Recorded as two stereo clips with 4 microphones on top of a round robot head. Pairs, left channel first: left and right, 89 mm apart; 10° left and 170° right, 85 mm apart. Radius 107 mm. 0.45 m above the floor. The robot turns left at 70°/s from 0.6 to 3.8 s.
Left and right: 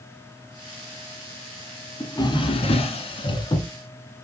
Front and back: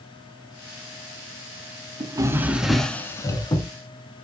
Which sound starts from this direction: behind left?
A drawer, at 2.0 s.